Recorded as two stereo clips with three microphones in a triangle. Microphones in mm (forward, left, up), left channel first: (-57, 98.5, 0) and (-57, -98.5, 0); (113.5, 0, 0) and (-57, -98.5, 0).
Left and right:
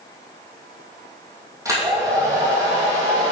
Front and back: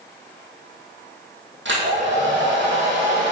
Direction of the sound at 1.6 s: 165° right.